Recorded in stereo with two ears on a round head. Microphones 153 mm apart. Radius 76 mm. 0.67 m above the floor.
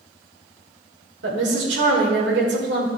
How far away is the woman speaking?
About 2 m.